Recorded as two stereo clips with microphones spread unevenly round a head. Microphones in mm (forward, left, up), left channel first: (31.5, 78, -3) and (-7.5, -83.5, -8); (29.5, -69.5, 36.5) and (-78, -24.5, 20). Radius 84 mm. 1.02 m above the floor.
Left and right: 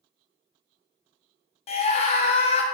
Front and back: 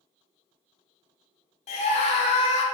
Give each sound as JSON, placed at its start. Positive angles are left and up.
{"t": 1.7, "sound": "a scream", "azimuth_deg": 20, "distance_m": 0.6}